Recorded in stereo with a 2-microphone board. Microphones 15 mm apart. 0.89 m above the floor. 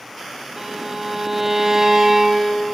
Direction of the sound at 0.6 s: 35° right (ahead or behind).